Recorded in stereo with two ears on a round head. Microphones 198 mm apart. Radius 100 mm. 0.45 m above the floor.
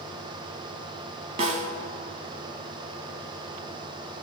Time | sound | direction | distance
1.4 | a snare drum | 30° right (ahead or behind) | 1.4 m